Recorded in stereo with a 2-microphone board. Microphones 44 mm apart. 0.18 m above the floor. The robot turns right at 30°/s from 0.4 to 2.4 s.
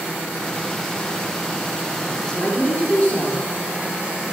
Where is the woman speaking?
25° left (ahead or behind), 3 m; by 3.4 s 35° left (ahead or behind), 3 m.